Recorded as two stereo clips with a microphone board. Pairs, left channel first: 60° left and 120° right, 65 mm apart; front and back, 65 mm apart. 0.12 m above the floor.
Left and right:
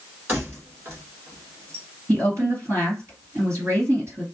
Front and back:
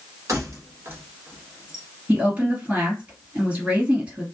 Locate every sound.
0.3 s keys jangling: 165° right, 1.6 m; by 1.9 s 95° right, 1.2 m
2.1 s a woman speaking: 120° right, 2.5 m